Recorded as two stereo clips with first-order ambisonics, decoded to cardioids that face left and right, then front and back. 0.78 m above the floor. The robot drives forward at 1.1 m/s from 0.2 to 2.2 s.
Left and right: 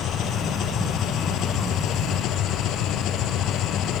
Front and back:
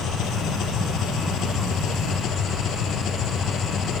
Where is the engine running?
40° left; by 4.0 s 50° left.